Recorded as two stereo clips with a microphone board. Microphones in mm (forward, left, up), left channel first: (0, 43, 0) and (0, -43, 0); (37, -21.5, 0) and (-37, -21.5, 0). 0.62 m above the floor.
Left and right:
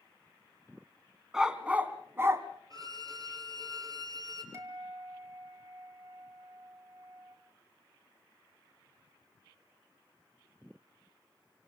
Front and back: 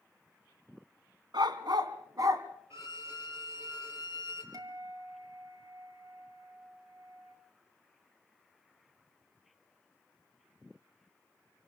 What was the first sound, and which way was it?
A dog barking, 170° right.